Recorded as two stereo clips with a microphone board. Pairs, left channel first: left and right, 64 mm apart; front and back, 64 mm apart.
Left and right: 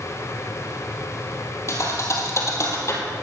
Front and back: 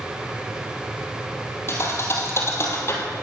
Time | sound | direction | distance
1.7 | a thud | 45° left | 2.0 m